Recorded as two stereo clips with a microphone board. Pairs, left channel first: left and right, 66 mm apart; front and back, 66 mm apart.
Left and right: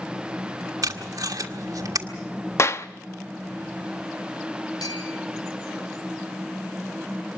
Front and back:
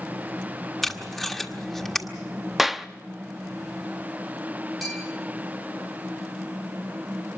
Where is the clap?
95° left, 0.6 m.